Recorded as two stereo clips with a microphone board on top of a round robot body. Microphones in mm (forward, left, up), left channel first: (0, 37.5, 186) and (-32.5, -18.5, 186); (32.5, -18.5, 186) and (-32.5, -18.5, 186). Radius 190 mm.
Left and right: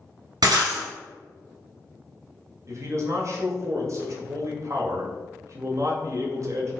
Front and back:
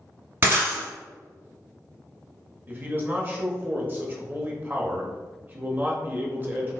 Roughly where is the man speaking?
Behind right.